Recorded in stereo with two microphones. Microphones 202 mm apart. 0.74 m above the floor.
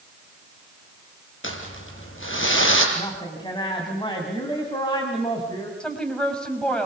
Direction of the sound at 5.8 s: 5° left (ahead or behind).